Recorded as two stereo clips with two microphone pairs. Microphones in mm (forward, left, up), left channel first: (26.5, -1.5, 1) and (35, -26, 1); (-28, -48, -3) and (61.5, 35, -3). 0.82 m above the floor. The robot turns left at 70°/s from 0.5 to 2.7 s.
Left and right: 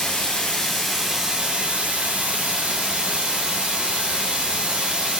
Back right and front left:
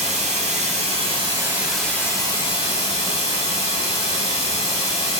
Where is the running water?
45° left, 1.6 m; by 5.2 s 110° right, 1.6 m.